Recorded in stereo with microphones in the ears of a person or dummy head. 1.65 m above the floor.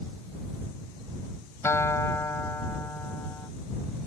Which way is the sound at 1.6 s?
15° left (ahead or behind).